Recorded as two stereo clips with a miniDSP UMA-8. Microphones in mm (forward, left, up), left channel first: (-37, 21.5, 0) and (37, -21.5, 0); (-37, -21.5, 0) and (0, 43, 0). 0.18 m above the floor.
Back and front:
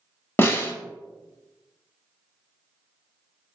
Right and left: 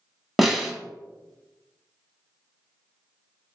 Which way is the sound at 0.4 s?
145° left.